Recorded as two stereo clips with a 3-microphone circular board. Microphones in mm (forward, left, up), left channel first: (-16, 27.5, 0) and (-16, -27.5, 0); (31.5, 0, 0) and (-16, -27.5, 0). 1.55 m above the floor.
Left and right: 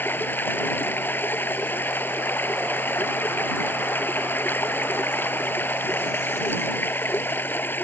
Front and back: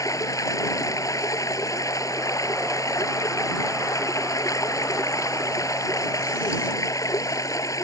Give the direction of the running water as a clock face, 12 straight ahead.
11 o'clock.